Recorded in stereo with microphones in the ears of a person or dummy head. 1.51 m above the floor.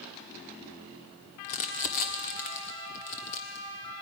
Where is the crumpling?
35° left (ahead or behind), 1.4 m.